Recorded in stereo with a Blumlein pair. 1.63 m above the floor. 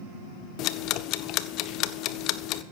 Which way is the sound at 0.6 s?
40° left.